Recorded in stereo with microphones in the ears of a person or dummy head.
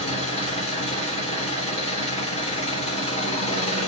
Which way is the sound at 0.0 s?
30° left (ahead or behind).